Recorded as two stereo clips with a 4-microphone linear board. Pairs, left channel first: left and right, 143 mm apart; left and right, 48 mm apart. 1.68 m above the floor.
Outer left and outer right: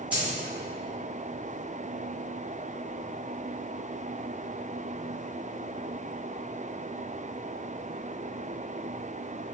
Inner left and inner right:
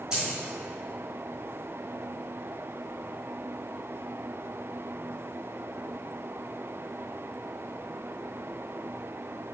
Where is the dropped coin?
10° right (ahead or behind), 1.5 m.